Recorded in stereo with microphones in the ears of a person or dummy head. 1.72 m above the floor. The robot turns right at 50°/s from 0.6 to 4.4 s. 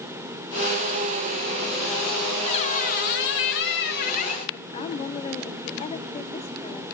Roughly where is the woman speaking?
Left.